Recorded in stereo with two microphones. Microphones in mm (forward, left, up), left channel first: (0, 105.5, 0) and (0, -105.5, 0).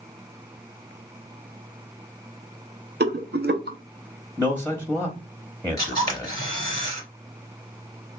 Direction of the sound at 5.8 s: 20° left (ahead or behind).